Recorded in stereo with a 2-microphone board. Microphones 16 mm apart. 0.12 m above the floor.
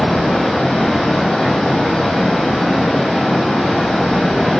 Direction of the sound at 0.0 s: 65° left (ahead or behind).